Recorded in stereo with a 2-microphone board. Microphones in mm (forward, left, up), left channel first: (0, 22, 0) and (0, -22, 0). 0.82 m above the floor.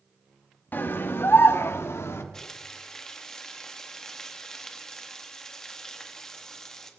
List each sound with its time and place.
0.7 s a scream: 50° left (ahead or behind), 1.2 m; by 2.2 s 70° left (ahead or behind), 1.8 m
2.3 s frying: 10° left (ahead or behind), 1.5 m